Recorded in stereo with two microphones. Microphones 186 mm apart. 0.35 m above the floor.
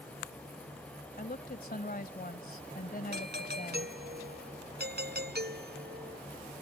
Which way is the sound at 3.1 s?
60° right (ahead or behind).